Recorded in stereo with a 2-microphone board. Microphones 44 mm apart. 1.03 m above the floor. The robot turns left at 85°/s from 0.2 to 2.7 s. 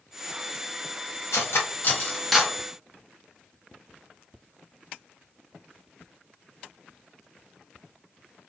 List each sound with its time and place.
1.3 s cutlery clinking: 80° left, 0.8 m; by 2.6 s 20° right (ahead or behind), 0.8 m